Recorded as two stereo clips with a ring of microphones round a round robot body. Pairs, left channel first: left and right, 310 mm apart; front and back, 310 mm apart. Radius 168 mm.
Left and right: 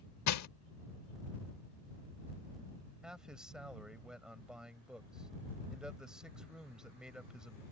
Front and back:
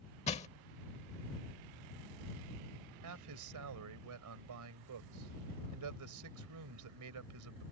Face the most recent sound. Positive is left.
turn(degrees=-175)